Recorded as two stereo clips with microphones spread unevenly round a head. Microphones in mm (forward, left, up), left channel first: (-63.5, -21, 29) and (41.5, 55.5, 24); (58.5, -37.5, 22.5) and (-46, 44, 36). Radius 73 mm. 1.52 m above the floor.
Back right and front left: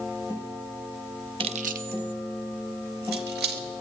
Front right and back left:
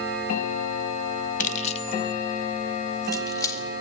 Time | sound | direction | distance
1.4 | keys jangling | 15° right | 0.6 m